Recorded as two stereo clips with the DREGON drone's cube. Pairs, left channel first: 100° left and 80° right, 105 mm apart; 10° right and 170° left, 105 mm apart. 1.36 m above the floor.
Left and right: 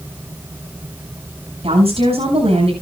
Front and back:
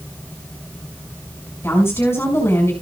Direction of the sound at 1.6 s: 75° right.